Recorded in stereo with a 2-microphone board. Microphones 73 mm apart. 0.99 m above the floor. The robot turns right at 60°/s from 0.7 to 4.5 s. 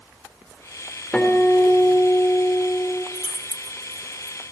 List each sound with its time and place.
1.1 s a guitar: 15° left, 4 m; by 3.0 s 130° left, 4 m
3.1 s keys jangling: 20° right (ahead or behind), 1.5 m; by 4.4 s 55° left (ahead or behind), 1.5 m